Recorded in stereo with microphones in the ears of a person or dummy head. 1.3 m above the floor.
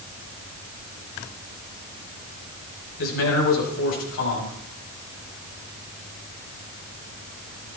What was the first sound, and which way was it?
A man speaking, 80° left.